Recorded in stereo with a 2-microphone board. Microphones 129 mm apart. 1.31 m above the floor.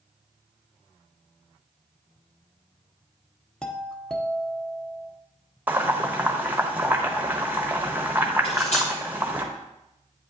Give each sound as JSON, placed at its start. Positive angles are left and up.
{"t": 3.6, "sound": "a doorbell", "side_deg": 5, "distance_m": 0.9}
{"t": 5.7, "sound": "boiling", "side_deg": -15, "distance_m": 1.0}
{"t": 8.4, "sound": "cutlery clinking", "side_deg": 60, "distance_m": 4.0}